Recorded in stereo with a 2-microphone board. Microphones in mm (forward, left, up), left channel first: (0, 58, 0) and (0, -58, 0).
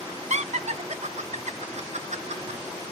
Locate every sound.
0.3 s laughter: 70° right (ahead or behind), 0.7 m